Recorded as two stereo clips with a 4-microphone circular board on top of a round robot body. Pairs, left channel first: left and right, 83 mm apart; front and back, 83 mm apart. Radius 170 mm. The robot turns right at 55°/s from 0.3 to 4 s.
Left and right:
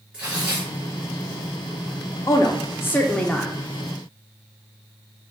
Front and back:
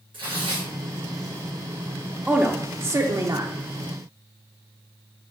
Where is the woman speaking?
110° left, 0.6 m; by 3.5 s straight behind, 0.6 m.